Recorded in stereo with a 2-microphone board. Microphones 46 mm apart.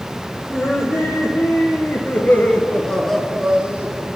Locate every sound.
0.5 s laughter: 65° left (ahead or behind), 3.5 m; by 4.2 s 40° right (ahead or behind), 1.6 m